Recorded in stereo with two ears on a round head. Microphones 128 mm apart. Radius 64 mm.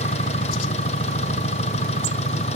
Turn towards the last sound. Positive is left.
turn(degrees=50)  # may be behind; listen again after turning